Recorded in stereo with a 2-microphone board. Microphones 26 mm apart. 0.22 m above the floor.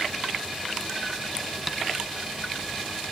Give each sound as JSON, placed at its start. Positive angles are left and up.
{"t": 1.7, "sound": "tapping", "side_deg": -5, "distance_m": 1.3}